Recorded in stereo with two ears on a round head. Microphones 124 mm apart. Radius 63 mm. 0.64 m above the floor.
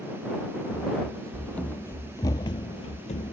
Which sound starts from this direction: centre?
Running footsteps, at 0.7 s.